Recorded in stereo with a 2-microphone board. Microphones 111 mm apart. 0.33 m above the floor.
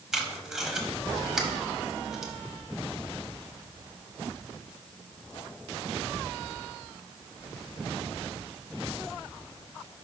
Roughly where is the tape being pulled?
Centre.